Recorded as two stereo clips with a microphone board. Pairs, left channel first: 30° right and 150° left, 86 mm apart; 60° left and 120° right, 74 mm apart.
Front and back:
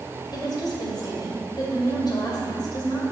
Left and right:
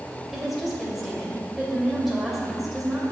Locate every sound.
0.3 s a woman speaking: 30° right, 2.5 m